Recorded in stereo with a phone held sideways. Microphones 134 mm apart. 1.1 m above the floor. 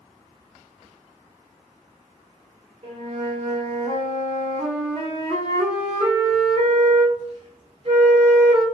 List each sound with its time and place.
2.8 s a flute: 45° right (ahead or behind), 1.2 m